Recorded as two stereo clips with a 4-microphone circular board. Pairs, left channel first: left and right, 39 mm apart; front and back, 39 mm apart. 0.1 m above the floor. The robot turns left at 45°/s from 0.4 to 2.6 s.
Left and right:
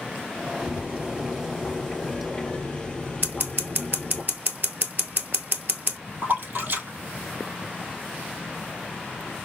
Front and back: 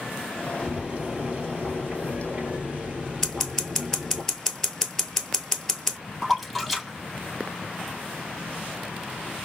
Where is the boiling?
125° right, 2.0 m; by 4.2 s 140° left, 2.0 m.